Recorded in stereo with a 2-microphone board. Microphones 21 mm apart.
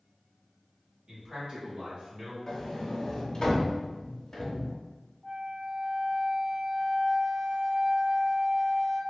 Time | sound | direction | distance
1.1 | a man speaking | 45° right (ahead or behind) | 2.0 m
2.5 | a sliding door | 35° left (ahead or behind) | 0.7 m
5.2 | a flute | 20° left (ahead or behind) | 1.2 m